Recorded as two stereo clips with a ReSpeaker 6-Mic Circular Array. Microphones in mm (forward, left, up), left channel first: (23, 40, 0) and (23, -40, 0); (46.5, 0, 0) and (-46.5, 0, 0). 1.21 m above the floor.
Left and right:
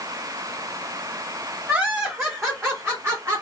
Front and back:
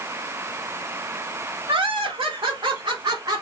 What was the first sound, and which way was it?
Laughter, 155° right.